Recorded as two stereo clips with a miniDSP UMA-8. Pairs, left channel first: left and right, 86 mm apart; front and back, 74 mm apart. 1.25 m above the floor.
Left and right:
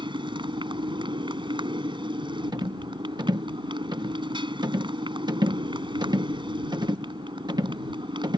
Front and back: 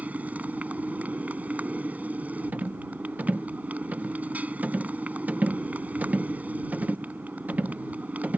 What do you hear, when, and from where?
0.0 s a motorcycle: 110° right
2.5 s a rattle: 115° right